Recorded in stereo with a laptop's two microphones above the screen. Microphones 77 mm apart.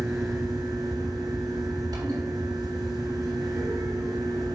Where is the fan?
60° right (ahead or behind), 3 m.